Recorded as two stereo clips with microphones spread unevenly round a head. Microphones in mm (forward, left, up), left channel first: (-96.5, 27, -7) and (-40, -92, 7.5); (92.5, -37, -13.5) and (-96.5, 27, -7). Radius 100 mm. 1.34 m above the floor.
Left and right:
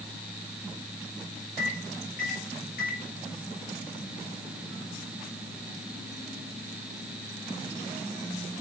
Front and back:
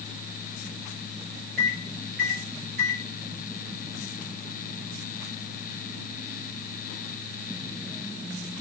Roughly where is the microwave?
Behind left.